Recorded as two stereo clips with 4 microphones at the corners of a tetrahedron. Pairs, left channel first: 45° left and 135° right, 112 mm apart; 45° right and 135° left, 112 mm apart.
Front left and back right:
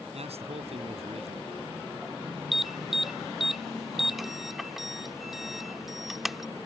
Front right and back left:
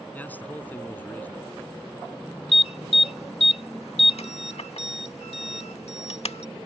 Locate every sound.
0.1 s a man speaking: 120° right
2.5 s an alarm: 45° right